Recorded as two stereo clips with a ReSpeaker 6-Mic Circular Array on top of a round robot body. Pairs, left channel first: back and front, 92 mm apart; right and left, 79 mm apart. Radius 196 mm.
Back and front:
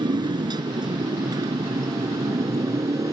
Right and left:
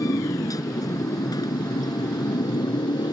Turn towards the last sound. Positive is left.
turn(degrees=-55)